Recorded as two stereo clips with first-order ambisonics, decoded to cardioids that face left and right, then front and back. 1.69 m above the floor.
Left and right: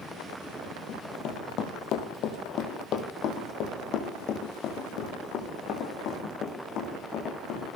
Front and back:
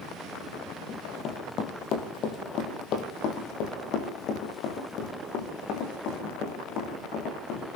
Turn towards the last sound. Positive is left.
turn(degrees=40)